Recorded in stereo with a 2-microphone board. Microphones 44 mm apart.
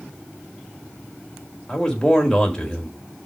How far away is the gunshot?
No gunshot in this recording.